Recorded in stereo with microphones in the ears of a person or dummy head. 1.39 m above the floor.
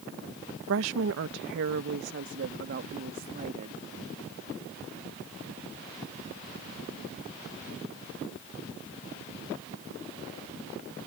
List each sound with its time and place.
0.7 s a woman speaking: 70° right (ahead or behind); by 3.8 s 45° right (ahead or behind)